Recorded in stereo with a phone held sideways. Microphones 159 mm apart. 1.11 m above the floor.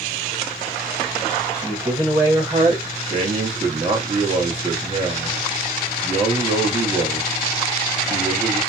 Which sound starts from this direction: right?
A man speaking, at 3.1 s.